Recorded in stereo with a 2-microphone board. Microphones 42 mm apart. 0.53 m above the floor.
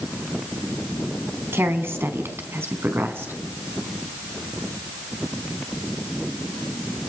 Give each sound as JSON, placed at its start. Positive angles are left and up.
{"t": 1.5, "sound": "a woman speaking", "side_deg": -75, "distance_m": 4.0}